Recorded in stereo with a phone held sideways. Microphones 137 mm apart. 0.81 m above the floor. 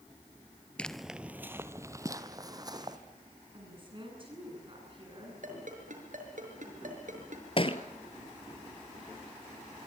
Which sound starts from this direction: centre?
Footsteps, at 0.8 s.